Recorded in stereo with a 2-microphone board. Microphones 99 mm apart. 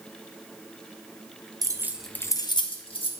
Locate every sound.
1.6 s keys jangling: 40° right (ahead or behind), 0.6 m; by 3.1 s 70° left (ahead or behind), 1.1 m